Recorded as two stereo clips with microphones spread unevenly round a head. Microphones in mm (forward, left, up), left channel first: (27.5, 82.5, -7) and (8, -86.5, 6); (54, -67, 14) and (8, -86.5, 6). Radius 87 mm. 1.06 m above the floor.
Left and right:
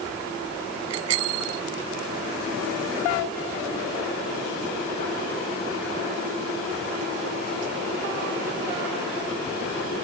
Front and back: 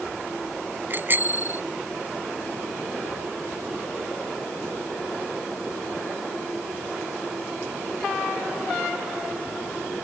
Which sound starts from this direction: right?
A bicycle bell, at 0.9 s.